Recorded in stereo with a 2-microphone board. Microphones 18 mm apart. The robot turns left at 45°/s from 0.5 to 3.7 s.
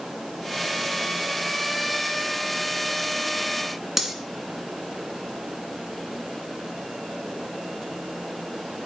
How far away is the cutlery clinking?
About 1.9 m.